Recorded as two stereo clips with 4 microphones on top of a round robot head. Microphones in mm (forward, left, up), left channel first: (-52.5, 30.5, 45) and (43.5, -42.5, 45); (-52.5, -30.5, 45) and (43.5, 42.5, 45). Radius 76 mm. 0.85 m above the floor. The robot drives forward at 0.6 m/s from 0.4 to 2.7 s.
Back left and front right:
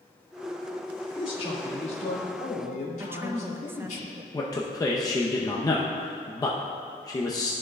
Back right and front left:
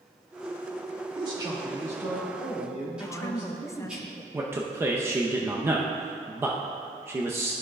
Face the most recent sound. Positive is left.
turn(degrees=100)